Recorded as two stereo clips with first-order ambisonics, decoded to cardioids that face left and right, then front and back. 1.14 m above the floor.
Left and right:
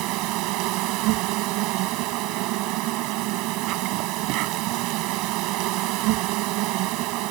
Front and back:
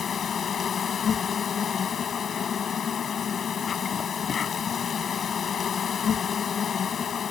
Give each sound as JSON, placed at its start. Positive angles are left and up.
{"t": 0.0, "sound": "an insect", "azimuth_deg": -65}